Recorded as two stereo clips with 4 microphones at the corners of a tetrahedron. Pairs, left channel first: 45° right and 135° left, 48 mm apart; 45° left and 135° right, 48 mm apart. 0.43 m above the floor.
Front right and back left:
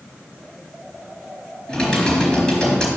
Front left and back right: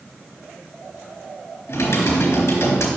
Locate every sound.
1.7 s typing on a keyboard: 30° left, 3.5 m